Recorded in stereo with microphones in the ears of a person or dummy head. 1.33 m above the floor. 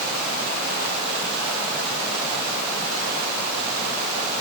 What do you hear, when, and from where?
Only background noise.